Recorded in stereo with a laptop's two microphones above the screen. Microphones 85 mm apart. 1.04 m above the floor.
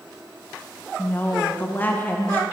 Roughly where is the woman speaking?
Left.